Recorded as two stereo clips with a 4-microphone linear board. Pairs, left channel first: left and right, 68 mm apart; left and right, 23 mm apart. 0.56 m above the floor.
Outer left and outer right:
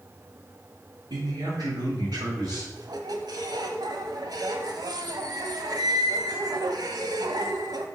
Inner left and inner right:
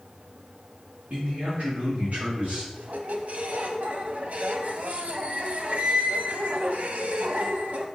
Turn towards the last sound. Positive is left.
turn(degrees=-80)